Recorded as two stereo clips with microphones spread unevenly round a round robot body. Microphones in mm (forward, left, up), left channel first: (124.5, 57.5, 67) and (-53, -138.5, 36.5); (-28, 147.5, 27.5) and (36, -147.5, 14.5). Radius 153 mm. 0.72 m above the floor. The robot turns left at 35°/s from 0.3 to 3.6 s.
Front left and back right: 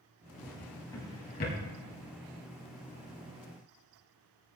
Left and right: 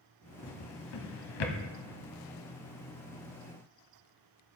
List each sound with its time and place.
0.4 s a drawer: 140° left, 1.3 m; by 1.6 s 100° left, 1.3 m